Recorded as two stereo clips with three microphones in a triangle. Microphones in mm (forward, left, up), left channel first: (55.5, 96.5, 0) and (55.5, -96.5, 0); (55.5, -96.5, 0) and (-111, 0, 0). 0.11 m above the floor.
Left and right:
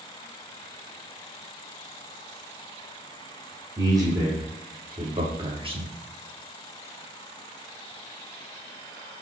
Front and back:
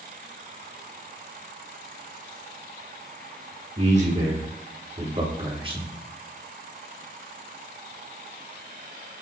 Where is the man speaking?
160° right, 6 m; by 5.9 s 145° right, 5 m.